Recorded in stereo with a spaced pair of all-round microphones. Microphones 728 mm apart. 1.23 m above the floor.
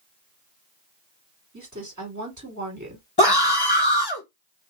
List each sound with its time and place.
1.5 s a woman speaking: 25° right (ahead or behind), 2.5 m
3.2 s a scream: 30° left (ahead or behind), 1.4 m